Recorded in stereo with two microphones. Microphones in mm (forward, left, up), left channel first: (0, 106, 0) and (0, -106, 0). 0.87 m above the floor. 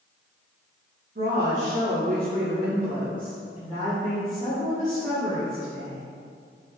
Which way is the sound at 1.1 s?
45° right (ahead or behind).